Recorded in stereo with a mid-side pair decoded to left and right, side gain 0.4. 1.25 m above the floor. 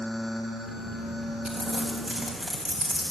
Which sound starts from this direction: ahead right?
Crumpling, at 1.4 s.